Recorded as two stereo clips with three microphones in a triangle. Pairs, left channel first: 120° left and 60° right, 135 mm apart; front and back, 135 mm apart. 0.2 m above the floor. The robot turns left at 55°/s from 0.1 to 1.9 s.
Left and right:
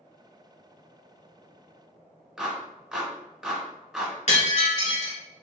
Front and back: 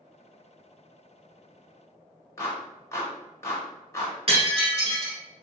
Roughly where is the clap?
Ahead.